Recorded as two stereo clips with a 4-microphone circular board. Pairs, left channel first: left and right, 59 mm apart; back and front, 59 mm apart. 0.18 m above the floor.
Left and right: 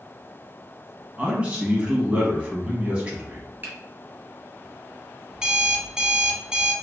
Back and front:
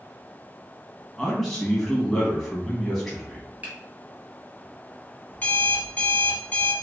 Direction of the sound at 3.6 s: 50° right.